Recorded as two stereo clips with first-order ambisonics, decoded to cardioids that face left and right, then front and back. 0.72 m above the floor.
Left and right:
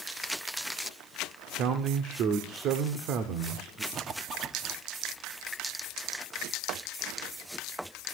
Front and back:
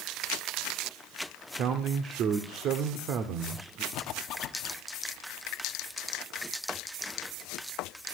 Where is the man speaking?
135° right, 1.6 m.